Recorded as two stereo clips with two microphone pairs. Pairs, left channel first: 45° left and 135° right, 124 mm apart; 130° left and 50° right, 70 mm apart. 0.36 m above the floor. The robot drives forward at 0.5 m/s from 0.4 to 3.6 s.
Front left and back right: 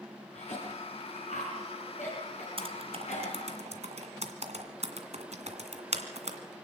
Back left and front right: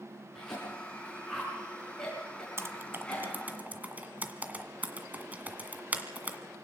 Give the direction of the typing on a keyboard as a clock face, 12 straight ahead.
3 o'clock.